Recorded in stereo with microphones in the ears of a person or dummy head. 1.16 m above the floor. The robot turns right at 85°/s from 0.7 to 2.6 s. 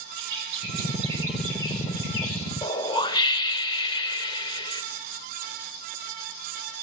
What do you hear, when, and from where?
0.2 s a bird: 60° right, 7 m; by 2.5 s 95° left, 7 m
2.6 s a whoosh: 20° left (ahead or behind), 1.9 m